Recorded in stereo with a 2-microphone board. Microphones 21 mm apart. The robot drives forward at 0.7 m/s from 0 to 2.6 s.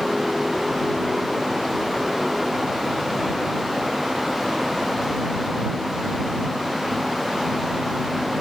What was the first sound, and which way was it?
Only background noise.